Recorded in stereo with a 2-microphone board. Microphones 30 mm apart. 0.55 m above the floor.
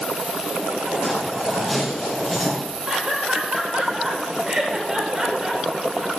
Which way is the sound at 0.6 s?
5° right (ahead or behind).